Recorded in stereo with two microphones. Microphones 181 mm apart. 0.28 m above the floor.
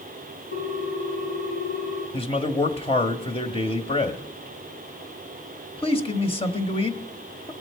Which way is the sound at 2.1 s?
30° left (ahead or behind).